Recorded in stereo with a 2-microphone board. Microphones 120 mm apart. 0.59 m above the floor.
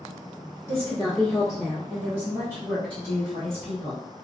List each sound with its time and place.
0.7 s a woman speaking: 30° left (ahead or behind), 1.3 m; by 4.0 s 45° right (ahead or behind), 2 m